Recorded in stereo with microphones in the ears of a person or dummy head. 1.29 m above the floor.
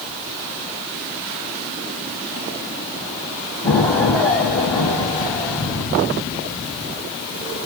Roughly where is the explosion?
Centre.